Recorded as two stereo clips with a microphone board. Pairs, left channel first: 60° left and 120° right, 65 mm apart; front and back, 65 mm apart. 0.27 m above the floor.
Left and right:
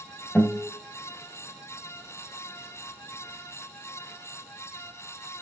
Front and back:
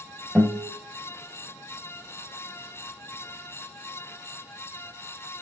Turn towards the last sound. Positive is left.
turn(degrees=115)